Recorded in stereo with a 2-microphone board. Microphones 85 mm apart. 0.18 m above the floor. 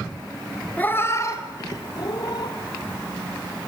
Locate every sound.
0.8 s a cat meowing: 20° left (ahead or behind), 0.9 m; by 2.5 s 60° left (ahead or behind), 2 m